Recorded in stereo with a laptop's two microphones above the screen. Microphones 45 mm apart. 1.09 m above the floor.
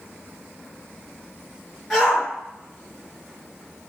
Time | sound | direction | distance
1.9 | a shout | centre (ahead or behind) | 2.0 m